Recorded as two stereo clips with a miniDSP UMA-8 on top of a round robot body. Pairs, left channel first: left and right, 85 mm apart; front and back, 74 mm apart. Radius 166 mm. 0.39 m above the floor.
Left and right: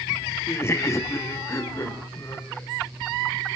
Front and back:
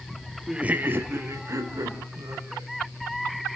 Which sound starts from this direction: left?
Laughter, at 0.5 s.